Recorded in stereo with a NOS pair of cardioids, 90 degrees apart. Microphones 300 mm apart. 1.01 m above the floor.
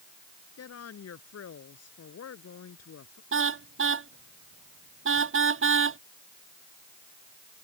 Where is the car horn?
40° right.